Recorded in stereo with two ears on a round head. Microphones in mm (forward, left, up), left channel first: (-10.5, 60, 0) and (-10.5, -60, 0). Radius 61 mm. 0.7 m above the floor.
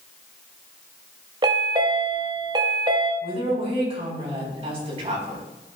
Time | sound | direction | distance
1.4 | a chime | 35° right (ahead or behind) | 1.4 m
3.2 | a woman speaking | 40° right (ahead or behind) | 5 m